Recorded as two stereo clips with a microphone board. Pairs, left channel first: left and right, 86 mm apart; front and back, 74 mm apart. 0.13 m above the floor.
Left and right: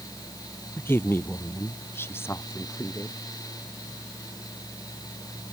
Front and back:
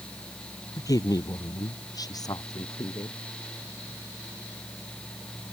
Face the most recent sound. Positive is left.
turn(degrees=30)